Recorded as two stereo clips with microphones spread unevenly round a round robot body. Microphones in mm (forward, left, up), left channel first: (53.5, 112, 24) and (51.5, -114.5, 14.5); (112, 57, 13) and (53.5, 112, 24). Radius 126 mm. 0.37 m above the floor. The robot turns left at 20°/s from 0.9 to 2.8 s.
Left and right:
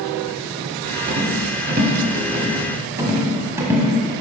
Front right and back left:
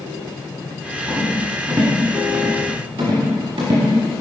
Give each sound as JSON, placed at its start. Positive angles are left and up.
{"t": 1.1, "sound": "a rattle", "azimuth_deg": -135, "distance_m": 1.1}